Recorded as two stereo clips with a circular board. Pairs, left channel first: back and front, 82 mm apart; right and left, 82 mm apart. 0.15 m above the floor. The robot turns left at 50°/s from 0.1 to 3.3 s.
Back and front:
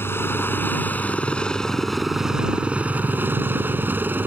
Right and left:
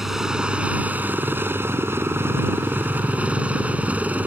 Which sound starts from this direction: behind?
A helicopter, at 0.0 s.